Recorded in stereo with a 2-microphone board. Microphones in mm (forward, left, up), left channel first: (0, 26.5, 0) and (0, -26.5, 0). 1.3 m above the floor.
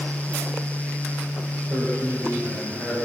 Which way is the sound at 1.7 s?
50° right (ahead or behind).